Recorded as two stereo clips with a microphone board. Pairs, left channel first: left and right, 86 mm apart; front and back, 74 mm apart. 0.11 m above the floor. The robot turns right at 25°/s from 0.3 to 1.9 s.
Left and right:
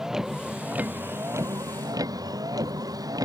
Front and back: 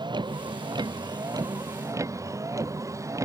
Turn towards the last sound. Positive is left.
turn(degrees=-135)